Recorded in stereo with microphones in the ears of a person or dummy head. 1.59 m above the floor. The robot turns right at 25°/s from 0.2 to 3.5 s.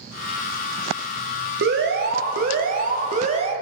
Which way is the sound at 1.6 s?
100° right.